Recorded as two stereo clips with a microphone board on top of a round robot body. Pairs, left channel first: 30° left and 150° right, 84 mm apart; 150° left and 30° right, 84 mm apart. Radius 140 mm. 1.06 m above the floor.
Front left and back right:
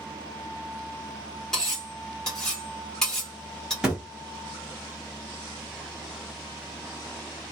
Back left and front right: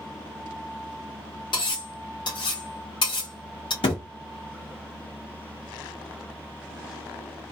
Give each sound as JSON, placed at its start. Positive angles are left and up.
{"t": 1.5, "sound": "cutlery clinking", "azimuth_deg": 115, "distance_m": 1.3}
{"t": 3.8, "sound": "a thud", "azimuth_deg": 130, "distance_m": 0.6}